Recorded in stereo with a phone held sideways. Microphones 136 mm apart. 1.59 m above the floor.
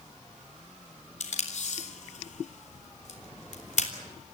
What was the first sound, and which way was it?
Tape being pulled, 60° left (ahead or behind).